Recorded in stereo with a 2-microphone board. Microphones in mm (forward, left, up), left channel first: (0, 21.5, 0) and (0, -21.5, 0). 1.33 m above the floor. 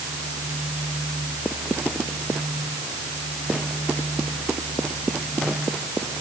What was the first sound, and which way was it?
Only background noise.